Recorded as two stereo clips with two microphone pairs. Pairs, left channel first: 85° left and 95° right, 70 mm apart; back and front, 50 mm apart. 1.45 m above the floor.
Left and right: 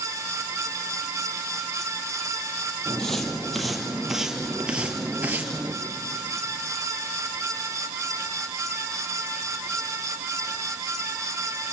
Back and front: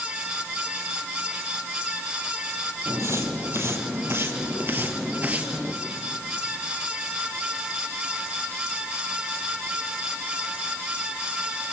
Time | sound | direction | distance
2.9 | footsteps | 5° left | 3 m